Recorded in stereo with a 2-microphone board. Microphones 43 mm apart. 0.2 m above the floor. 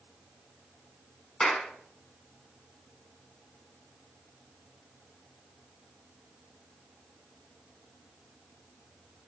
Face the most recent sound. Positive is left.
turn(degrees=10)  # may be behind; listen again after turning